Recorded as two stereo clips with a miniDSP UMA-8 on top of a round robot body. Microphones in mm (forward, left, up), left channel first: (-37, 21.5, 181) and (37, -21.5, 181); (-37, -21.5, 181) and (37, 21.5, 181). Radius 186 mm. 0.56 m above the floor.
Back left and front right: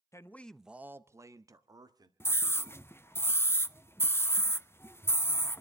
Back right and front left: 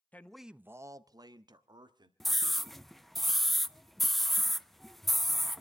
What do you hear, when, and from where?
0.1 s a man speaking: 155° left, 1.0 m; by 2.1 s 5° left, 2 m
2.2 s a scream: 125° left, 1.1 m